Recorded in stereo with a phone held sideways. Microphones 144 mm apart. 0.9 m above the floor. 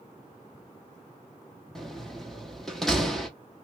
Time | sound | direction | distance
1.8 | a door slam | centre (ahead or behind) | 0.9 m